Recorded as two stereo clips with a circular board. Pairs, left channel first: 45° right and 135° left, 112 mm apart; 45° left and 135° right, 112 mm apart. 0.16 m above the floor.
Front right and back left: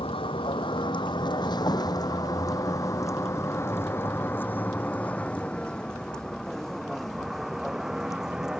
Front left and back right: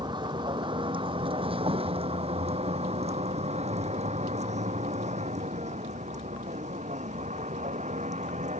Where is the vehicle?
85° right; by 8.6 s 140° right.